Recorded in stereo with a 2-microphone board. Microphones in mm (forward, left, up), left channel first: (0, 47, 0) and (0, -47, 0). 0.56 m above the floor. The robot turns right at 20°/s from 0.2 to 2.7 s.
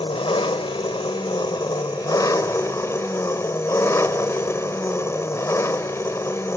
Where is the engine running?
95° left, 1.1 m; by 6.6 s 145° left, 1.1 m.